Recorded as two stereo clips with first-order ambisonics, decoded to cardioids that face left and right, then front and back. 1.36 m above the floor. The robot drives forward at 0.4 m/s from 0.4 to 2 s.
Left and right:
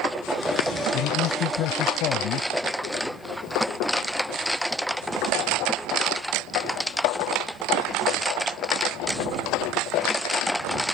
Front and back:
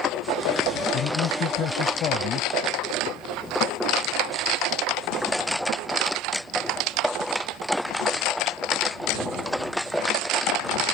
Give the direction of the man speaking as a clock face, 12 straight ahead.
10 o'clock.